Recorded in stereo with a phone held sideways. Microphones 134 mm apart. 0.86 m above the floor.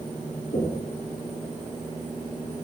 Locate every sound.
0.5 s knocking: 80° left, 7.5 m